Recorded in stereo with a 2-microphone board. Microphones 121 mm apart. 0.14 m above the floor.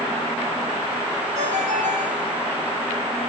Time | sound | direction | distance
1.4 | a ringtone | 75° right (ahead or behind) | 5 m